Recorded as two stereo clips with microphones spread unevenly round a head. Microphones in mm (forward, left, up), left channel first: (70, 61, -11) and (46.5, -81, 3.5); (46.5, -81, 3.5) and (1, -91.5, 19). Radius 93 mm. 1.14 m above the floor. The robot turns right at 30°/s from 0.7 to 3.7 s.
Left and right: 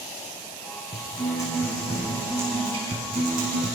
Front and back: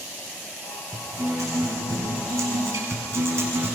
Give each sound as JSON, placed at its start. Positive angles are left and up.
{"t": 0.9, "sound": "a guitar", "azimuth_deg": 145, "distance_m": 6.0}